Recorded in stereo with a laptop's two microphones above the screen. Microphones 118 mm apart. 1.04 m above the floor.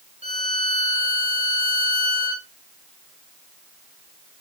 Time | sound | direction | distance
0.2 | a violin | 75° right (ahead or behind) | 2.5 m